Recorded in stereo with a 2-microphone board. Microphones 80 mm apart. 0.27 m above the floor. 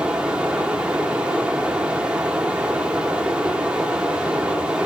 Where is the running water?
15° right (ahead or behind), 0.9 m.